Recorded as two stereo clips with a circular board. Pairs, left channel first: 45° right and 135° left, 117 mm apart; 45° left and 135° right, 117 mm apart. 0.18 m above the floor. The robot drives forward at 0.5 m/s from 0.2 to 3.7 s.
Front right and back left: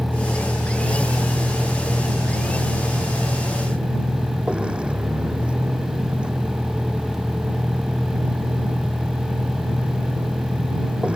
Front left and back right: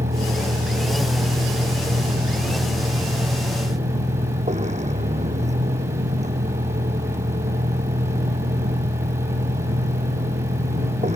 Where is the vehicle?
135° right; by 11.2 s 145° right.